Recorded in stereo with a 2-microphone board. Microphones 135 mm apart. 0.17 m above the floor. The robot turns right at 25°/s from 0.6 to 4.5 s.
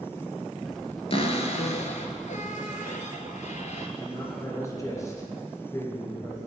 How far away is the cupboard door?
About 1.1 m.